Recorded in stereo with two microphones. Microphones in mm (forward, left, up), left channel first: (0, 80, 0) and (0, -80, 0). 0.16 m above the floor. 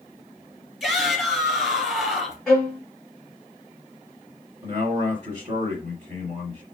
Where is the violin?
5° left (ahead or behind), 1.5 m.